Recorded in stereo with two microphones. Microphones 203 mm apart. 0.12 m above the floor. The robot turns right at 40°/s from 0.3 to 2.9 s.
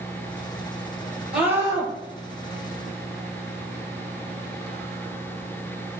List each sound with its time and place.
1.3 s a scream: 5° right (ahead or behind), 2.5 m; by 1.9 s 25° right (ahead or behind), 2.5 m